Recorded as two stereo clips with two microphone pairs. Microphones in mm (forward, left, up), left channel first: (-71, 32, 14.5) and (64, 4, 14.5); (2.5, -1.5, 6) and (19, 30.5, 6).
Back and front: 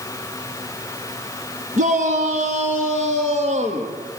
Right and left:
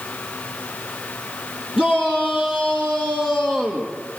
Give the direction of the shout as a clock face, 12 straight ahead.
12 o'clock.